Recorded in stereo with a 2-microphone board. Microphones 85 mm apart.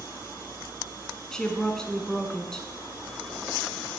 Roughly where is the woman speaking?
Centre.